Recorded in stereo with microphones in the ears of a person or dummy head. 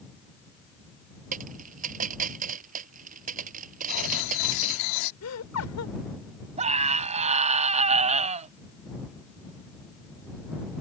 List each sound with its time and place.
1.3 s a dropped coin: 50° right (ahead or behind)
3.9 s writing: 65° left (ahead or behind)
5.2 s laughter: 85° left
6.6 s a scream: 40° right (ahead or behind)